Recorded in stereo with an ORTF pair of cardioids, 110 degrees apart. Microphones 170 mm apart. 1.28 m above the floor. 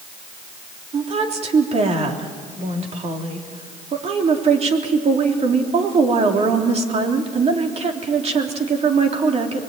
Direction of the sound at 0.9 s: 40° right.